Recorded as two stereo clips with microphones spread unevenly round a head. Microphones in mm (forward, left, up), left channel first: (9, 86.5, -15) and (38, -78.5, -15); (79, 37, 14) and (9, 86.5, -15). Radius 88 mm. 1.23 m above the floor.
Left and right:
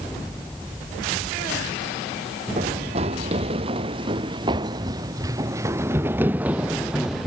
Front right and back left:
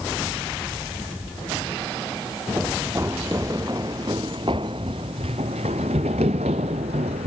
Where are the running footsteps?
135° right; by 7.3 s 170° right.